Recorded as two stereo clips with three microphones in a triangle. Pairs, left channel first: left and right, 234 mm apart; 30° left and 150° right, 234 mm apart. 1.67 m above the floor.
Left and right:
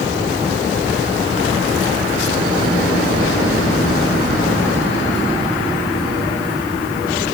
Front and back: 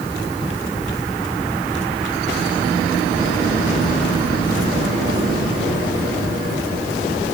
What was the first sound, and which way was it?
Only background noise.